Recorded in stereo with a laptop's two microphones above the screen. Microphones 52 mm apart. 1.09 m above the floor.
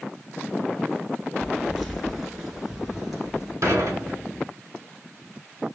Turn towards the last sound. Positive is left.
turn(degrees=-75)  # may be behind; listen again after turning